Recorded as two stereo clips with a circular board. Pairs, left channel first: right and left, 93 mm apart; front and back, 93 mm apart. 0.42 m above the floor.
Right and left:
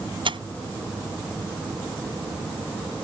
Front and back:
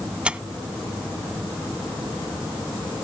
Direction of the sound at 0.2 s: 100° left.